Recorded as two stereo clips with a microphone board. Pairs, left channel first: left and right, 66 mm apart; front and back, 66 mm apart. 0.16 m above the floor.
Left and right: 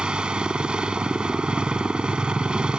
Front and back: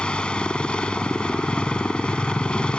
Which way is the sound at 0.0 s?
45° right.